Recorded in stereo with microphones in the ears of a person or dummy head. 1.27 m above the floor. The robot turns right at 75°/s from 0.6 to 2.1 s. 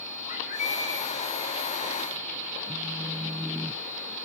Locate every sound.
0.3 s a bird: 135° left, 2.5 m; by 1.1 s 170° left, 2.5 m
2.7 s a phone buzzing: 5° right (ahead or behind), 0.6 m